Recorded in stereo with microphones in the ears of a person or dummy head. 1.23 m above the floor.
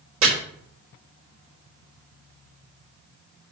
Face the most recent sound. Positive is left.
turn(degrees=-80)